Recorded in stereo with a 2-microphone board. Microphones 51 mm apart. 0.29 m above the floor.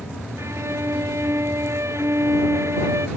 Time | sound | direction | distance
0.4 | a violin | 70° right (ahead or behind) | ?